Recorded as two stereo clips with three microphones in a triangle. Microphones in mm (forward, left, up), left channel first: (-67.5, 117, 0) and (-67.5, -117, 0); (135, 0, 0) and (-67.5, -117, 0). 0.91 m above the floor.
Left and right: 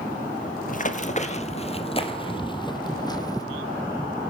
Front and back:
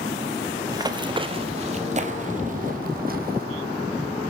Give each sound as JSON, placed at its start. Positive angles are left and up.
{"t": 0.7, "sound": "running footsteps", "azimuth_deg": 140, "distance_m": 1.5}